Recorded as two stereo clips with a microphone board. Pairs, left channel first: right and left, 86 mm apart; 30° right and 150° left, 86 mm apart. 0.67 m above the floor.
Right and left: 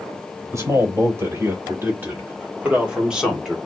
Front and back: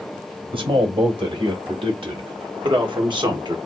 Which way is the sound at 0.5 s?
145° left.